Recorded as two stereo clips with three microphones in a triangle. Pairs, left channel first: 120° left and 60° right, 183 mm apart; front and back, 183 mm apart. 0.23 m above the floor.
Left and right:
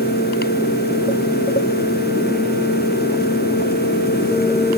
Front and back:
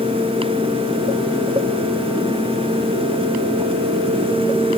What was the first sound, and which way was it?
Only background noise.